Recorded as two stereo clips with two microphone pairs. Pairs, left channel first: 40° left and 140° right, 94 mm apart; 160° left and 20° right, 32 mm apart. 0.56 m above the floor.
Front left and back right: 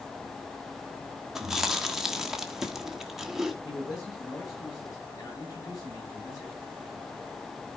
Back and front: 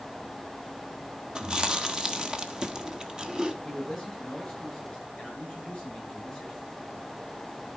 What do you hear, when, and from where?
1.4 s chewing: 60° right, 1.3 m
3.6 s a man speaking: 95° left, 7.5 m